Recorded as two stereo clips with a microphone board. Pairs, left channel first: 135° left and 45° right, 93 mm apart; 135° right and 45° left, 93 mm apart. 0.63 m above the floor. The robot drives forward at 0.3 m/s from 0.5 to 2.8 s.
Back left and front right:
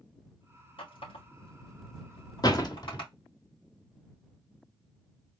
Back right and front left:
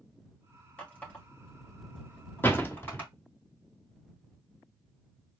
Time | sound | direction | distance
0.8 | a running tap | 150° left | 3 m
2.4 | a door slam | 165° left | 1.1 m